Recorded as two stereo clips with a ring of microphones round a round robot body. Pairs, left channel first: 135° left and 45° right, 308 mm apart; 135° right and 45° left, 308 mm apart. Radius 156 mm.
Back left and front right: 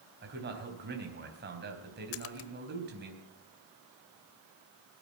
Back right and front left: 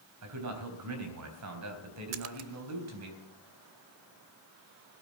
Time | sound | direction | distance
0.2 | a man speaking | 10° left | 3.5 m
2.1 | a splash | 90° left | 0.7 m